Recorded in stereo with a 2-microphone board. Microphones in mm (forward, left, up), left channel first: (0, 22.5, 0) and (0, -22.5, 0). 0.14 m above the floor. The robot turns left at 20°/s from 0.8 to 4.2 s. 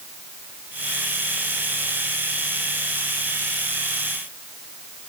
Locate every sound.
Only background noise.